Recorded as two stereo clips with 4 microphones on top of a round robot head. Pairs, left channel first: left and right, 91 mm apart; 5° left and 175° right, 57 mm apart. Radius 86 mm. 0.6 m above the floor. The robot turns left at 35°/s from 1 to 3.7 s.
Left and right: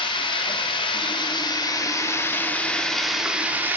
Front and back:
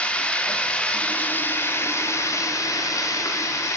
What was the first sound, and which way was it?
Running water, 70° left.